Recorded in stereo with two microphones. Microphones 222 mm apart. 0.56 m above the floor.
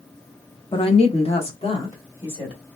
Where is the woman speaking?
20° left (ahead or behind), 0.7 m; by 2.6 s 25° left (ahead or behind), 1.7 m.